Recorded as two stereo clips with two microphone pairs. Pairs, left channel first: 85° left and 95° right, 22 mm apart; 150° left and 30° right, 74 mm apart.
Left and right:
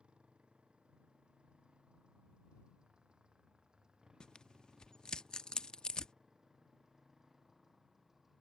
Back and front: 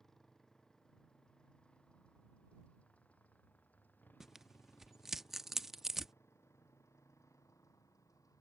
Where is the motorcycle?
125° right; by 8.4 s 170° right.